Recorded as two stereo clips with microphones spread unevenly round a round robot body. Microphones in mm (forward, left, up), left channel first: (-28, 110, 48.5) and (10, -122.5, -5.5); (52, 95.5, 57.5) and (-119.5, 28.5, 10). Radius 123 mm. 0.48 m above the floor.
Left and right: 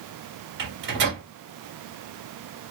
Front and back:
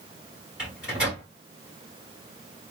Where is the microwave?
85° right, 1.4 m.